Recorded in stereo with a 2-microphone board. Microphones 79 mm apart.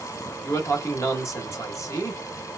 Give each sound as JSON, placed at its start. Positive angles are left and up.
{"t": 0.4, "sound": "a man speaking", "side_deg": 40, "distance_m": 1.0}